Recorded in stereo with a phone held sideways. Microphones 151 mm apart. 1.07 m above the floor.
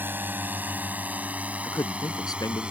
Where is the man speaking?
25° left (ahead or behind).